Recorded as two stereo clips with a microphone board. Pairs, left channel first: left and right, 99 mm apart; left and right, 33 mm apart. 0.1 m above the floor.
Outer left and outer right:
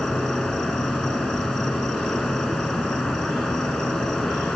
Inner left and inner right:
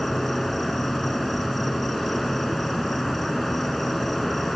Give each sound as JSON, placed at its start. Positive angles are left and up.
{"t": 0.0, "sound": "an insect", "side_deg": 10, "distance_m": 3.5}